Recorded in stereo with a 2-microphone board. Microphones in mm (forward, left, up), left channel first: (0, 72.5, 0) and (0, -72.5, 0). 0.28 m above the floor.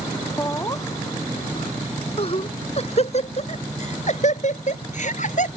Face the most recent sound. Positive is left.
turn(degrees=60)  # may be behind; listen again after turning